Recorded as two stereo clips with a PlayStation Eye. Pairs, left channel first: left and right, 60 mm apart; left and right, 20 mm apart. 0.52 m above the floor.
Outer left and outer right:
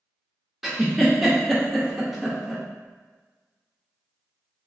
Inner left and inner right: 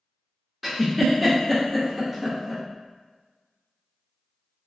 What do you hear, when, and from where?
0.6 s a giggle: 5° right (ahead or behind), 0.6 m